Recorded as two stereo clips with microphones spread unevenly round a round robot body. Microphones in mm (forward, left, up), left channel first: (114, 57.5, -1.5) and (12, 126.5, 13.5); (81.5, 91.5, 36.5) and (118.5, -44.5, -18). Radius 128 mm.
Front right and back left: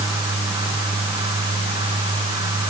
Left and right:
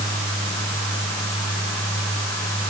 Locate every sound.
Only background noise.